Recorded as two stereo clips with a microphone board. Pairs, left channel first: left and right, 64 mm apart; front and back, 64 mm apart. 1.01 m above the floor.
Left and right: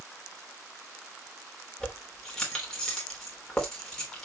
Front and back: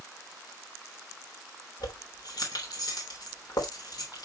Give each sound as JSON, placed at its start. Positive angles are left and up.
{"t": 1.8, "sound": "keys jangling", "azimuth_deg": 10, "distance_m": 3.0}